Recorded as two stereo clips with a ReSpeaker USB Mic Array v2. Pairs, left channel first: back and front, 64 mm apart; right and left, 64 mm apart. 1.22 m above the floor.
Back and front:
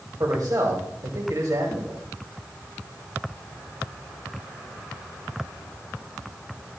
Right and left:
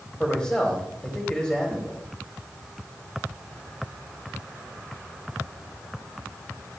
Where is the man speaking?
20° right, 2.5 m.